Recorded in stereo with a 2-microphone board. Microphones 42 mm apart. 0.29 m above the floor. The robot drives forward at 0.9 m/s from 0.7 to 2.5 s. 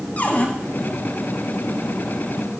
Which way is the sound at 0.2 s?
40° left (ahead or behind).